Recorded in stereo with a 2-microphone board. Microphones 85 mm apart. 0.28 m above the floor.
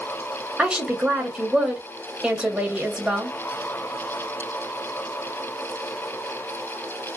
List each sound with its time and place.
0.6 s a woman speaking: 10° right (ahead or behind), 1.1 m